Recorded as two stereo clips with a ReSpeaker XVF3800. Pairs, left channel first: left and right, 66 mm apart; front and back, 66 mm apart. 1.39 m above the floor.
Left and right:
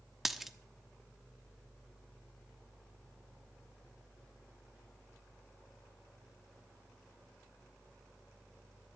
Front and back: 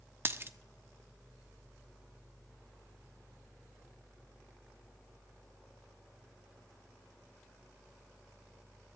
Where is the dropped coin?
175° right, 1.0 m.